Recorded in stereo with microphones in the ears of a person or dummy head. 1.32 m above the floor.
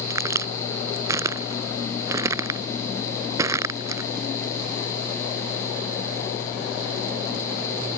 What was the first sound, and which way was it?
A crack, 20° right (ahead or behind).